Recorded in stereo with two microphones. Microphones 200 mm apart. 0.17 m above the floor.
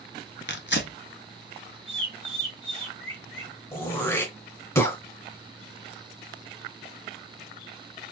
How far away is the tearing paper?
About 0.8 m.